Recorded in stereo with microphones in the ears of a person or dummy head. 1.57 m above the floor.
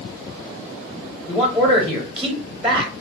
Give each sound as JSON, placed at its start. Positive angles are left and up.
{"t": 1.3, "sound": "a man speaking", "side_deg": 0, "distance_m": 0.6}